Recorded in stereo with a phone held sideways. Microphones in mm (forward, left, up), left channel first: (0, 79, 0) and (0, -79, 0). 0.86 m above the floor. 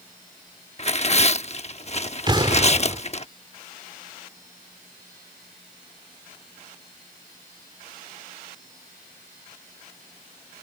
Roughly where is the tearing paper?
Left.